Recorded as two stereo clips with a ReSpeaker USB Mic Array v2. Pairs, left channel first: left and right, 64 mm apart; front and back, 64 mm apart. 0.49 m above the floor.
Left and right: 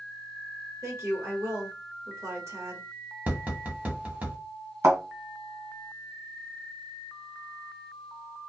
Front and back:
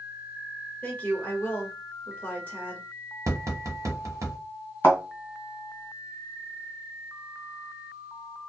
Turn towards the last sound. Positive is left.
turn(degrees=-50)